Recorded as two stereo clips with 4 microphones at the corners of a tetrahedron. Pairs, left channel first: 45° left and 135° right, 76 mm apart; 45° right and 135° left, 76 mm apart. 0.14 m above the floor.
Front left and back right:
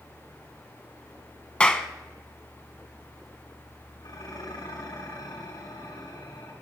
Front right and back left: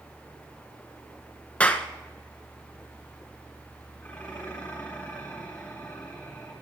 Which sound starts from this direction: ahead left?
Dishes clattering, at 4.0 s.